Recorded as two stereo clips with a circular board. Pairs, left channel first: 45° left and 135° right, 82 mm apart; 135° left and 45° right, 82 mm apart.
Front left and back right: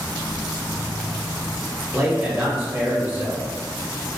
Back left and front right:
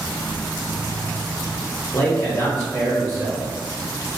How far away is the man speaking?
About 1.2 m.